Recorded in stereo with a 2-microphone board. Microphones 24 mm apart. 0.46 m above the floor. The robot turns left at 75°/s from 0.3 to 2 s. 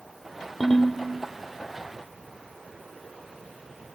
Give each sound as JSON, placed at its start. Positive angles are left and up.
{"t": 0.6, "sound": "a ringtone", "side_deg": 20, "distance_m": 0.9}